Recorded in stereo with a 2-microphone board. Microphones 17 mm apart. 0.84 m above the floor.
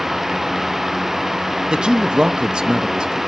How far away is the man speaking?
About 0.6 m.